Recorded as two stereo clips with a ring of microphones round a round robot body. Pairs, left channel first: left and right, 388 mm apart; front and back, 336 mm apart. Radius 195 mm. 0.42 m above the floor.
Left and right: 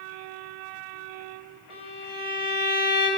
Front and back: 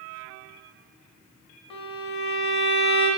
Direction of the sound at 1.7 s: 15° right.